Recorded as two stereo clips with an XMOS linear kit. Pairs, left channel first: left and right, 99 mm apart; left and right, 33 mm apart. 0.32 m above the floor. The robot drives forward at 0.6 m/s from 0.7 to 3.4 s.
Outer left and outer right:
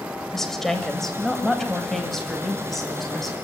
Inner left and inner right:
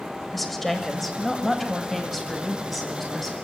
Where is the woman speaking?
5° left (ahead or behind), 1.3 m; by 3.3 s centre (ahead or behind), 2.5 m.